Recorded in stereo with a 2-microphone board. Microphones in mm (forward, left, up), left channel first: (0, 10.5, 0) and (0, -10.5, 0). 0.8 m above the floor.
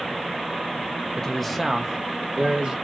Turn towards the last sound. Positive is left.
turn(degrees=-50)  # may be behind; listen again after turning